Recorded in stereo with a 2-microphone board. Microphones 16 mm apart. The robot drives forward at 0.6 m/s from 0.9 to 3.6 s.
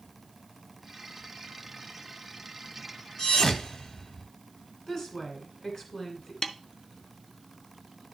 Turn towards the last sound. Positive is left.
turn(degrees=45)  # may be behind; listen again after turning